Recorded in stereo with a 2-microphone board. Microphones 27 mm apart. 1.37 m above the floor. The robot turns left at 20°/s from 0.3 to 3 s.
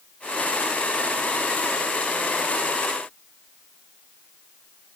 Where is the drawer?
I don't hear a drawer.